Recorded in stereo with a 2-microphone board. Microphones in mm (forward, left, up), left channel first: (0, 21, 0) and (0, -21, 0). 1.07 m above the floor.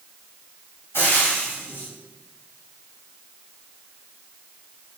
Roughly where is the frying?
Left.